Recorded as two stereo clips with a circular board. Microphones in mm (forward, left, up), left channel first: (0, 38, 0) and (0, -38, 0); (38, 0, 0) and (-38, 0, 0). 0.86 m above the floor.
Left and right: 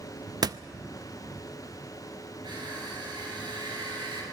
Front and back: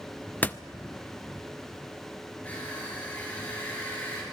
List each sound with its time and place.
0.4 s a door slam: 65° right, 0.5 m
2.4 s crushing: 70° right, 7.5 m